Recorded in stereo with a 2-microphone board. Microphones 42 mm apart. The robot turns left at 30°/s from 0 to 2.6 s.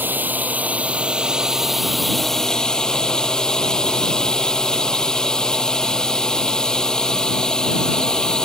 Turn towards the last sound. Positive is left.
turn(degrees=160)